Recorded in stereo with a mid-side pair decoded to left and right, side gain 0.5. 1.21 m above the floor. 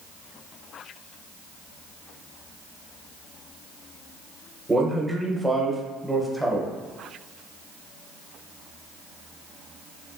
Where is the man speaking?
10° right, 0.8 m.